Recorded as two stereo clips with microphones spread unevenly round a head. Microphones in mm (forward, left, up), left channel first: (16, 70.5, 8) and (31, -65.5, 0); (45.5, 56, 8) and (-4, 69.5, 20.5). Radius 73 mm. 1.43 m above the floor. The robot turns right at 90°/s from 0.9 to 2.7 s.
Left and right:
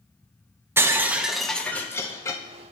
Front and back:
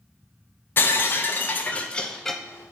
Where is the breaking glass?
30° right, 0.6 m; by 2.4 s 105° left, 0.6 m.